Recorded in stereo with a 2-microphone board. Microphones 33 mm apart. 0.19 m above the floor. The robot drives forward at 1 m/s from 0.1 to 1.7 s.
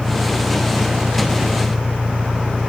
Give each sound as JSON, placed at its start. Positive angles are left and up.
{"t": 0.0, "sound": "an engine running", "side_deg": -80}